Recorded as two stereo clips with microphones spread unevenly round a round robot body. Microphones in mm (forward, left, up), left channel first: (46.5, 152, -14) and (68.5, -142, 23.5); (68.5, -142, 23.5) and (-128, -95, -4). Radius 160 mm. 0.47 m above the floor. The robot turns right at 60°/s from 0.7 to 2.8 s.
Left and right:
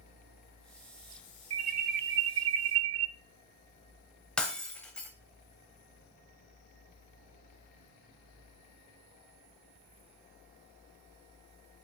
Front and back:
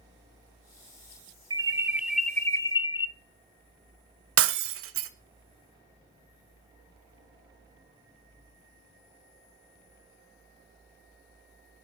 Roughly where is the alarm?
Behind right.